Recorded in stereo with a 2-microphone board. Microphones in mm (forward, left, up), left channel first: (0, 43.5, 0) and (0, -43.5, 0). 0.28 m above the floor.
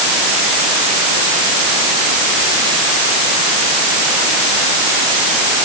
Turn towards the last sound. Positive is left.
No sound to turn to.